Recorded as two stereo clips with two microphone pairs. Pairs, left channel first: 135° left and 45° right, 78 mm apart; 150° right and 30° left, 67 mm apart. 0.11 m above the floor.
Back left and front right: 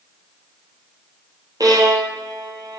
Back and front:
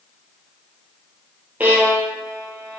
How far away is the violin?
About 0.8 m.